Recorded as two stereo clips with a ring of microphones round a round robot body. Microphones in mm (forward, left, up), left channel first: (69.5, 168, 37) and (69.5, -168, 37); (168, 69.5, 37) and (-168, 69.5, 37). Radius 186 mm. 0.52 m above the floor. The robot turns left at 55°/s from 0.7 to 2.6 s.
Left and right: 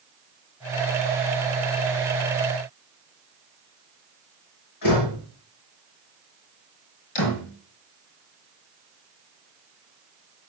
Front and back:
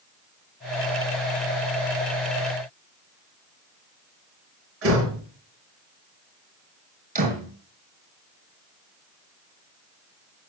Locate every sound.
4.8 s a door slam: 130° left, 6 m
7.2 s a door slam: 115° left, 5.5 m